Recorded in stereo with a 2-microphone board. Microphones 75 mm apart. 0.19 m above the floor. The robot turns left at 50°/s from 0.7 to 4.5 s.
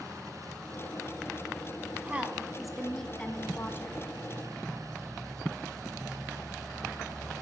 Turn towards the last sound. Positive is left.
turn(degrees=90)